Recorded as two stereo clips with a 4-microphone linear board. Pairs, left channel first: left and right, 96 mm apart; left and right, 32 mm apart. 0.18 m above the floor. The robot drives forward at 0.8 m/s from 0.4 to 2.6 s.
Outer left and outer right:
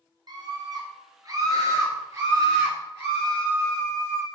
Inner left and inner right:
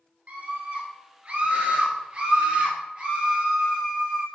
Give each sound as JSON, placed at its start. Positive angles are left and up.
{"t": 0.3, "sound": "a scream", "side_deg": -50, "distance_m": 2.0}